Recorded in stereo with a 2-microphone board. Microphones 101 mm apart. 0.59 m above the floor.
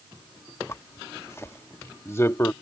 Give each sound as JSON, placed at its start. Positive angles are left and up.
{"t": 0.7, "sound": "a zipper", "side_deg": 25}